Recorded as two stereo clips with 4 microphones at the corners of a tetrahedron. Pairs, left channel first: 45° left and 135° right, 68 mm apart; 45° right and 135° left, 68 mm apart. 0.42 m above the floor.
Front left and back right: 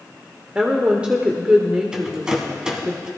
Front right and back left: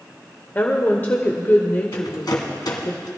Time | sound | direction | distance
0.6 | a woman speaking | 75° right | 1.1 m
1.9 | a rattle | 55° right | 2.0 m